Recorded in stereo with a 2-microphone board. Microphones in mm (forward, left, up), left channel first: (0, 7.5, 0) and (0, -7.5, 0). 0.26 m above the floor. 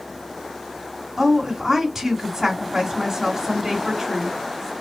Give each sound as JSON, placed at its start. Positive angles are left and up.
{"t": 1.2, "sound": "a woman speaking", "side_deg": -20, "distance_m": 2.5}